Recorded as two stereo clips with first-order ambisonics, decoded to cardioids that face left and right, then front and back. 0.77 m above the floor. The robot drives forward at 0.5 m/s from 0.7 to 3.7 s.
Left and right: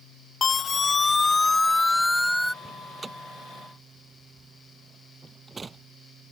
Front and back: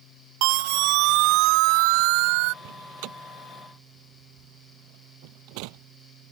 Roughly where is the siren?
Behind.